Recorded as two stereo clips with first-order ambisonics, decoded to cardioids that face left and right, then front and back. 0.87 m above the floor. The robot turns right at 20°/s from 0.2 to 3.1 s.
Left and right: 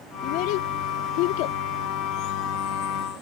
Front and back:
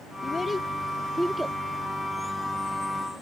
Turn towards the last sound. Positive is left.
turn(degrees=130)